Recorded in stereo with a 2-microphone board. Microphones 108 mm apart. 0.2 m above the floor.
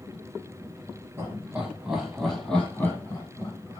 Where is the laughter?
25° right (ahead or behind), 1.2 m; by 3.8 s 35° left (ahead or behind), 1.5 m.